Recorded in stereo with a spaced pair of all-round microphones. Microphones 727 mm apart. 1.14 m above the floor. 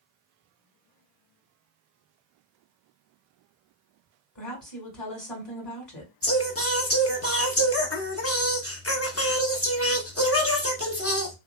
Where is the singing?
20° left (ahead or behind), 0.6 m.